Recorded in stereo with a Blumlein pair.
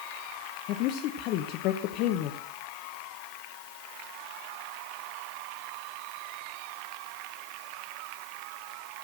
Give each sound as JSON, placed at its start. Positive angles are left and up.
{"t": 0.7, "sound": "a woman speaking", "azimuth_deg": 40, "distance_m": 1.1}